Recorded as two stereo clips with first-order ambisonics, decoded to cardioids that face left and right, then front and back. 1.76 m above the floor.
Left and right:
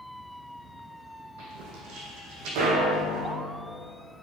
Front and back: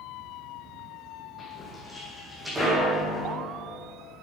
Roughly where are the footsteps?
Right.